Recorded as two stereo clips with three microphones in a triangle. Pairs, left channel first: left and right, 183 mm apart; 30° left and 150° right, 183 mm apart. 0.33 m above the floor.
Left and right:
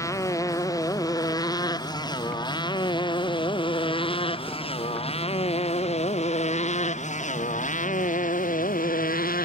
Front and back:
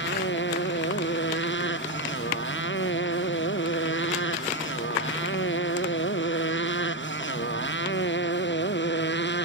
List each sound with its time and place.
0.0 s a motorcycle: 15° left; by 9.5 s 50° left